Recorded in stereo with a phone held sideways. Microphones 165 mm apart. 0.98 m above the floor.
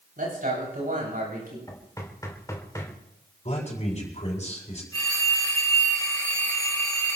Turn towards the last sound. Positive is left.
turn(degrees=25)  # may be behind; listen again after turning